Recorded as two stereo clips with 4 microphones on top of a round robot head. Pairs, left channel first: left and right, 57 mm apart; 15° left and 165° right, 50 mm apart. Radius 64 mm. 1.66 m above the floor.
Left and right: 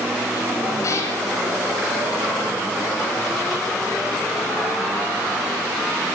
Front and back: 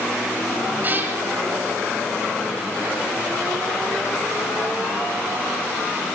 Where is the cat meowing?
140° left, 3.5 m.